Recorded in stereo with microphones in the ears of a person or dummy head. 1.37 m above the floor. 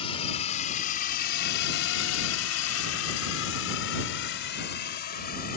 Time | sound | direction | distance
0.0 | a drone | 35° left (ahead or behind) | ?